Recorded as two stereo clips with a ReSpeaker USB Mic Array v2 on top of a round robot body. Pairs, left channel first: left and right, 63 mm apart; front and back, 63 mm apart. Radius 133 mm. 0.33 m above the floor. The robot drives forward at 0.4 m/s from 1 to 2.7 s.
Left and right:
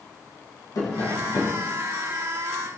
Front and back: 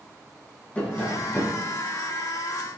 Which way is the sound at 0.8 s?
65° left.